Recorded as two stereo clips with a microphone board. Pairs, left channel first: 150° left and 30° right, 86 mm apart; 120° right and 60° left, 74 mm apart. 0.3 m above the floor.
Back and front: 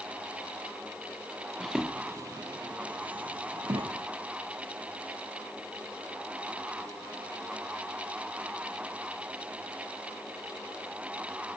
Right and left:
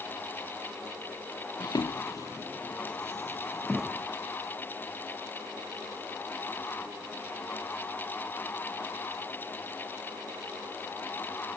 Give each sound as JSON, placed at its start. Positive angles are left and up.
{"t": 1.6, "sound": "footsteps", "azimuth_deg": -130, "distance_m": 0.6}